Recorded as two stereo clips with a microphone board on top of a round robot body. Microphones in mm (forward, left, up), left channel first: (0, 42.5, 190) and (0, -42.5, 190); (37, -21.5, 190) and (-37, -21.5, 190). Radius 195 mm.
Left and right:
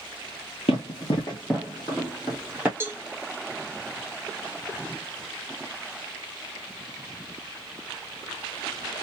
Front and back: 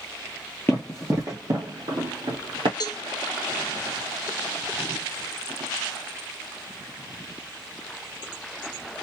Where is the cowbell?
25° right, 1.3 m.